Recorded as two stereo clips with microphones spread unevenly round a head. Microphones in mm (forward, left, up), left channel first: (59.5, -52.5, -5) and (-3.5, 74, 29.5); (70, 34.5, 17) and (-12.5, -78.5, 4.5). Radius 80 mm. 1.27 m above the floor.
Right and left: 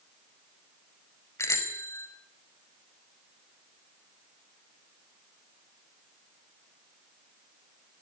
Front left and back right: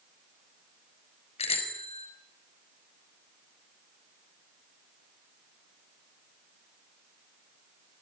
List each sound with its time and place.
1.4 s a bicycle bell: 10° left, 5 m